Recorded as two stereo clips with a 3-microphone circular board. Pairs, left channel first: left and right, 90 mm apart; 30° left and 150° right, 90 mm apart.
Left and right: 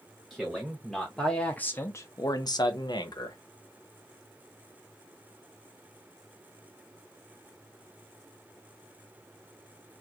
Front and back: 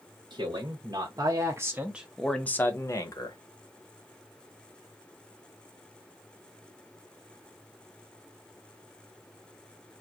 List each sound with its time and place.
0.3 s a man speaking: 175° right, 1.1 m; by 3.4 s 60° left, 0.8 m